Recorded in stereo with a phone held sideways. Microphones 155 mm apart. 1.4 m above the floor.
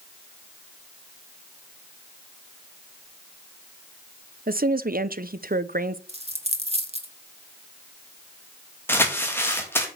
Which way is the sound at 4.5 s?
70° right (ahead or behind).